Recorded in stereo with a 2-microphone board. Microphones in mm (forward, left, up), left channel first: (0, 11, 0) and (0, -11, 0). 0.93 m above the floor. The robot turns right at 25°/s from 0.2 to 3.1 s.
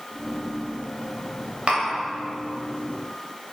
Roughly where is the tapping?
Right.